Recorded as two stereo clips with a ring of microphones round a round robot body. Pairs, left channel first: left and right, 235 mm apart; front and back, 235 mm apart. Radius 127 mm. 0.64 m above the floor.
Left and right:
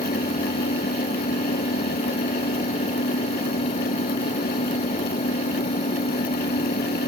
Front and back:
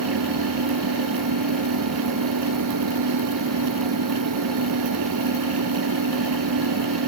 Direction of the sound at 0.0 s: 150° left.